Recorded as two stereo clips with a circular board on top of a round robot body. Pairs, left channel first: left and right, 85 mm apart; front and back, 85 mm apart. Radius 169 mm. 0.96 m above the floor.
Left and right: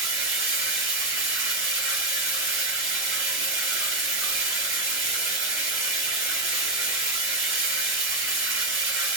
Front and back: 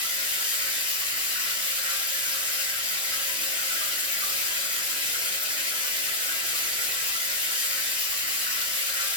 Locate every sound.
0.0 s running water: 150° right, 1.2 m